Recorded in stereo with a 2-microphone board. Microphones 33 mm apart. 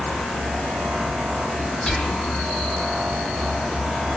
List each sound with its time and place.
1.9 s whispering: 10° left (ahead or behind), 0.9 m